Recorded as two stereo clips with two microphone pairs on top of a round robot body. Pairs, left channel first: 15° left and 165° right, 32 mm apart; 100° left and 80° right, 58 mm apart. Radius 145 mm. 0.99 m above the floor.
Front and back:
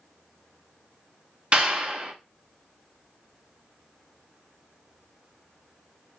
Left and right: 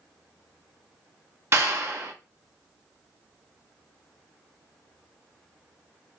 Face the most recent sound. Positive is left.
turn(degrees=-115)